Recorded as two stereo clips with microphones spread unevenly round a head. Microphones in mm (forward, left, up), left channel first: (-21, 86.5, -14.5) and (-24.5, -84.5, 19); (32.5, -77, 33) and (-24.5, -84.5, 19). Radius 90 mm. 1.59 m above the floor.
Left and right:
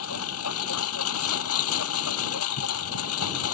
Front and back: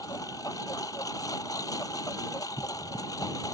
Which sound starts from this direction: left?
A lawn mower, at 0.0 s.